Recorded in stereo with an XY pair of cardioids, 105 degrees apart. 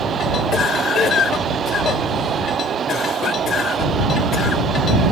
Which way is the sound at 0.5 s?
55° left.